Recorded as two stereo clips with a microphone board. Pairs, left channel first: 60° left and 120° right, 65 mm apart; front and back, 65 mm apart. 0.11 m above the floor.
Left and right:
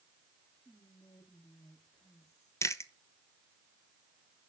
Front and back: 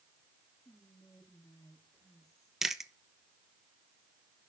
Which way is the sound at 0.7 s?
25° left.